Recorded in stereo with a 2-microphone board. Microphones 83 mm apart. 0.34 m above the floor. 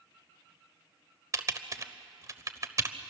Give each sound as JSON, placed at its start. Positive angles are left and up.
{"t": 1.3, "sound": "typing on a keyboard", "side_deg": -40, "distance_m": 1.0}